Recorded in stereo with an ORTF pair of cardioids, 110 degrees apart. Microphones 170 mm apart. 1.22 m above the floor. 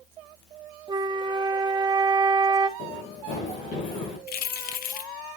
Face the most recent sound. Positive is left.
turn(degrees=65)